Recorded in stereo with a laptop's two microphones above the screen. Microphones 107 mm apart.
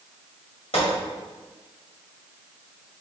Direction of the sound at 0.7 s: 60° left (ahead or behind).